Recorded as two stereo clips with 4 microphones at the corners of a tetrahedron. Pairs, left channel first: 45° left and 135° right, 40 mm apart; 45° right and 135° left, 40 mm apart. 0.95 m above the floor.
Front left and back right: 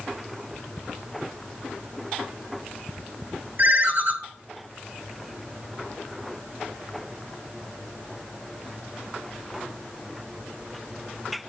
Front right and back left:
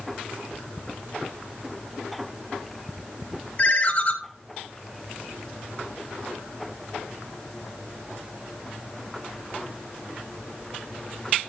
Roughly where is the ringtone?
Right.